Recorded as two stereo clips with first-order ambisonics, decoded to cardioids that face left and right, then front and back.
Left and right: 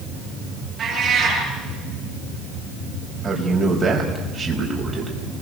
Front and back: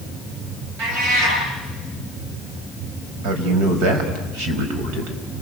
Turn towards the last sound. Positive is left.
turn(degrees=-160)